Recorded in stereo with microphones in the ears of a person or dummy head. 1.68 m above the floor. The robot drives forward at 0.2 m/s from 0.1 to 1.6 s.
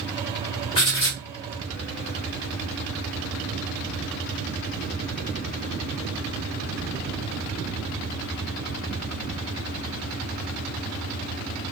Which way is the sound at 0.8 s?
25° left (ahead or behind).